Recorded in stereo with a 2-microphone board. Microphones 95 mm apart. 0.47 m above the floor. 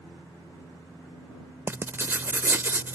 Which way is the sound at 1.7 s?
25° right (ahead or behind).